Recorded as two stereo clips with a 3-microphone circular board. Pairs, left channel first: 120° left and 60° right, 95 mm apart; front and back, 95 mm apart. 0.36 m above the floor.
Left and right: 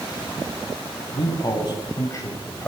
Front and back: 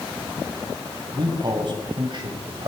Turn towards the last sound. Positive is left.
turn(degrees=-175)